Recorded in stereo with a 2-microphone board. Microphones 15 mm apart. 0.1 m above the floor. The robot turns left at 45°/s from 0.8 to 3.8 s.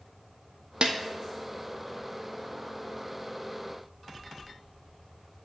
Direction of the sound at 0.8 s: 75° right (ahead or behind).